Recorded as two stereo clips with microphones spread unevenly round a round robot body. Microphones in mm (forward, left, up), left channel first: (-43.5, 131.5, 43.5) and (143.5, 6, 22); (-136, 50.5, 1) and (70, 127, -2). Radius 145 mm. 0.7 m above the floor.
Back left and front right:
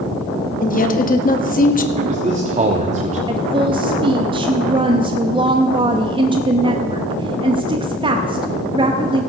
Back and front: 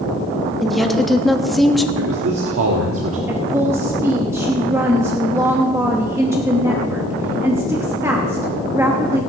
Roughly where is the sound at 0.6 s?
Left.